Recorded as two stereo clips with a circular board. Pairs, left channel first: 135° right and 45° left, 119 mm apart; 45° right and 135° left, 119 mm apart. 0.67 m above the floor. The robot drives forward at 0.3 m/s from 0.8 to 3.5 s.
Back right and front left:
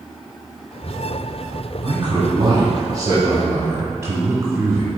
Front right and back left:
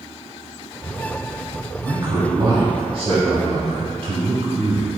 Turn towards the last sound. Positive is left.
turn(degrees=105)